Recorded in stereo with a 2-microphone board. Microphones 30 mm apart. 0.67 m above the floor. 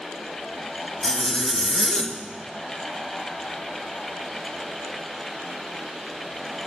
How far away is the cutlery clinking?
I don't hear cutlery clinking.